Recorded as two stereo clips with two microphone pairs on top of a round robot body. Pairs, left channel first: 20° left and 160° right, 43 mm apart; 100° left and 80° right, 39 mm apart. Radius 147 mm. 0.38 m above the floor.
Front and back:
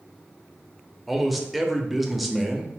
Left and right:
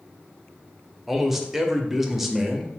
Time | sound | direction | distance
1.1 | a man speaking | 90° right | 0.8 m